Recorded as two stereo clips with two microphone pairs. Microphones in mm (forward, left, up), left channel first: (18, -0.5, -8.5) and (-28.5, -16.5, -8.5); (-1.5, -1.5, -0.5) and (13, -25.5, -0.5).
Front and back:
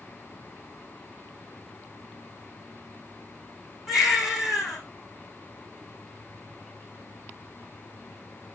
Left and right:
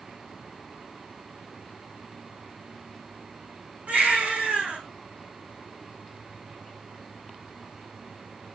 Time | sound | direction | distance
3.9 | a baby crying | 75° right | 4 m